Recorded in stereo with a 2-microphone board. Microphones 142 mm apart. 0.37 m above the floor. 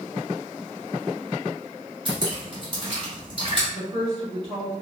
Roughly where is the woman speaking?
Right.